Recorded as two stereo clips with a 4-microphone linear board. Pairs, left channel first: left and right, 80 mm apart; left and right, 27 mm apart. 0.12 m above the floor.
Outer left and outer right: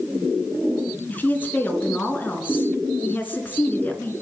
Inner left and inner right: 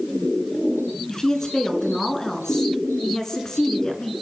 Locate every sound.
1.1 s a woman speaking: 25° left (ahead or behind), 1.5 m